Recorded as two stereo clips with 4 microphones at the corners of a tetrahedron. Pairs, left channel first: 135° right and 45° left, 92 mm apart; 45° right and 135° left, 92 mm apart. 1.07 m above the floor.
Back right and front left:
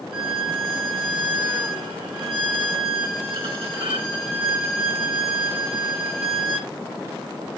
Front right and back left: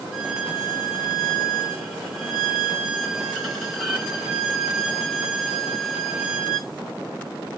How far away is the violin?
About 1.6 m.